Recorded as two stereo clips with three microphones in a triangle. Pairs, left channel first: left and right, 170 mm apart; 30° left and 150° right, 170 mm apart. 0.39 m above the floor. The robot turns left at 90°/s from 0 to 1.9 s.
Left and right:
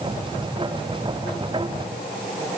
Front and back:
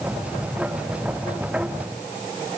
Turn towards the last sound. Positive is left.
No sound to turn to.